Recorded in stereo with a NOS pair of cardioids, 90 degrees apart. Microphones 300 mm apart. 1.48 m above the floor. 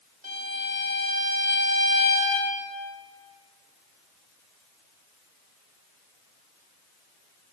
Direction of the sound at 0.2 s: 30° right.